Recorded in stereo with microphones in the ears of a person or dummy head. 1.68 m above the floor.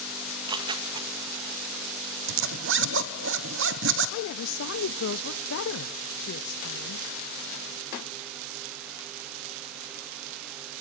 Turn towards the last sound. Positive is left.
turn(degrees=65)  # may be behind; listen again after turning